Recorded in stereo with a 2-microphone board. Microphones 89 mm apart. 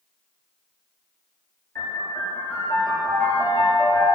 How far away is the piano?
About 2.0 m.